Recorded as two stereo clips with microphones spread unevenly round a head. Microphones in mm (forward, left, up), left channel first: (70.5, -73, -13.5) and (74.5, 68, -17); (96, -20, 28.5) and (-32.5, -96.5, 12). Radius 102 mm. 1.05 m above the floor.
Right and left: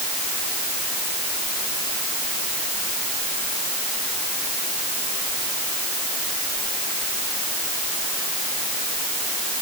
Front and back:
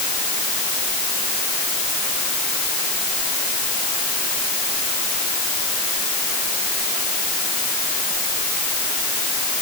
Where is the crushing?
No crushing in this recording.